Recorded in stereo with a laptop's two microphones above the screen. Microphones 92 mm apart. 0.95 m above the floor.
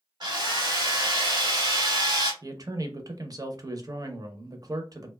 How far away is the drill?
About 1.2 m.